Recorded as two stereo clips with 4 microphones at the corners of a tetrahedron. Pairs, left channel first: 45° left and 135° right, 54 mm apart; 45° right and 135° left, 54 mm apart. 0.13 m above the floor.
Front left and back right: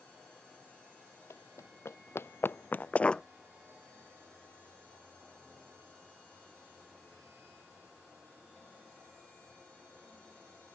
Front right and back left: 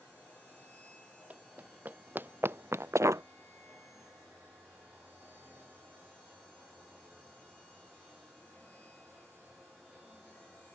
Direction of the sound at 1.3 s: 75° left.